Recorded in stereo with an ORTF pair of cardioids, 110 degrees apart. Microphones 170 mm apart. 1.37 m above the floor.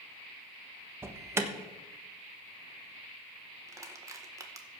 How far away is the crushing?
About 1.6 m.